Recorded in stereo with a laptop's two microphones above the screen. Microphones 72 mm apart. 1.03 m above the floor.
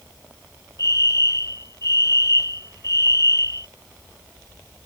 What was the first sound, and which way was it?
A fire alarm, 50° left (ahead or behind).